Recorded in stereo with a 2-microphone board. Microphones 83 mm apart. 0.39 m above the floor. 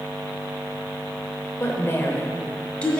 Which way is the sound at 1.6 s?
35° left (ahead or behind).